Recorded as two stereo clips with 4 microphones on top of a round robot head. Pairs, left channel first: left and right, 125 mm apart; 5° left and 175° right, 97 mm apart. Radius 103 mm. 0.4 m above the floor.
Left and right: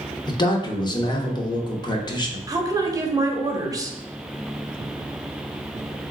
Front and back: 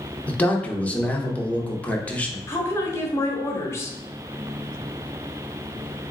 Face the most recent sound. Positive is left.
turn(degrees=-40)